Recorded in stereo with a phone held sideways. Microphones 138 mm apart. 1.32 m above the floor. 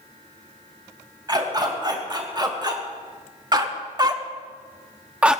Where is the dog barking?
30° right (ahead or behind), 3.5 m; by 5.4 s 5° right (ahead or behind), 0.8 m.